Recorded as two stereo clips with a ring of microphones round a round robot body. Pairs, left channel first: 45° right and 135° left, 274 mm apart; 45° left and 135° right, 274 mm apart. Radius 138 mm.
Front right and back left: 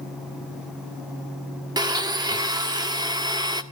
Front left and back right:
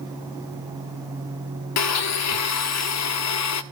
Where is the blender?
60° left, 1.4 m.